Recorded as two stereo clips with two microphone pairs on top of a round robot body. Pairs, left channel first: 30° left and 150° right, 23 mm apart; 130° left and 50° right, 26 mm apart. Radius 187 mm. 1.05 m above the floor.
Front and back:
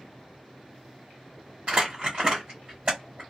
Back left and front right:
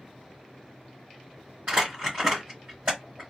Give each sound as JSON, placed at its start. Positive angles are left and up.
{"t": 1.7, "sound": "crumpling", "azimuth_deg": -95, "distance_m": 1.0}